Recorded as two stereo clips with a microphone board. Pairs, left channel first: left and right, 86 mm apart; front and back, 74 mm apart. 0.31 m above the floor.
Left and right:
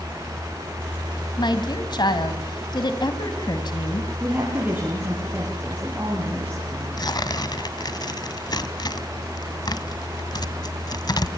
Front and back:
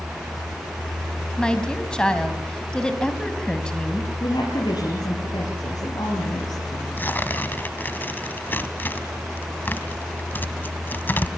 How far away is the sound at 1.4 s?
About 2.5 m.